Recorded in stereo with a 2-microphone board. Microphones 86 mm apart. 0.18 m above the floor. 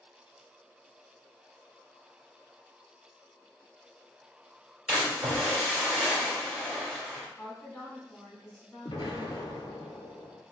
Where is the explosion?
75° left (ahead or behind), 0.9 m.